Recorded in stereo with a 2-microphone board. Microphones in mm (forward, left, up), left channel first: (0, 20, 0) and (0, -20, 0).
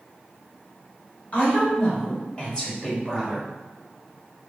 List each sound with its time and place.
1.3 s a woman speaking: 40° left (ahead or behind), 1.4 m; by 3.5 s 10° left (ahead or behind), 1.2 m